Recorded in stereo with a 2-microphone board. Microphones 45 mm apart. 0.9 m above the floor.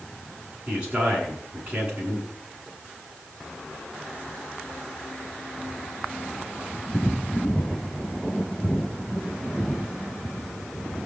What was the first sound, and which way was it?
A man speaking, 25° right (ahead or behind).